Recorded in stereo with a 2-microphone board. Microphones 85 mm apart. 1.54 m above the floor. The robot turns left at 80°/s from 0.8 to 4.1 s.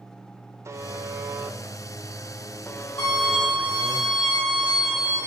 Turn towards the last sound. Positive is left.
turn(degrees=20)